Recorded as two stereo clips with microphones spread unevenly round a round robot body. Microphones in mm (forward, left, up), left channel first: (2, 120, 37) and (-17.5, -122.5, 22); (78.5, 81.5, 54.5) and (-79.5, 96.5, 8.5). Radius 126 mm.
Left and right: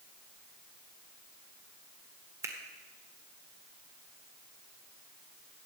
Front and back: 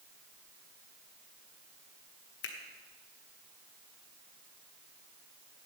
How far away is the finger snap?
About 1.6 m.